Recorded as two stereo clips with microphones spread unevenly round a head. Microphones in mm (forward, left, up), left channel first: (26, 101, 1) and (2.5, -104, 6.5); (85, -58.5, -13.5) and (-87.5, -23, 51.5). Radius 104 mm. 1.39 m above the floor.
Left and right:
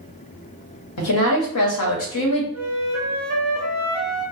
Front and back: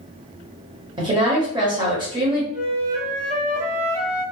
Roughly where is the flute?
Behind.